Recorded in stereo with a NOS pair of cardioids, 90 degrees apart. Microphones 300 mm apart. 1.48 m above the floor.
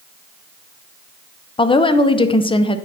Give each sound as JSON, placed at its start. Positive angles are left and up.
{"t": 1.6, "sound": "a woman speaking", "azimuth_deg": 15, "distance_m": 0.9}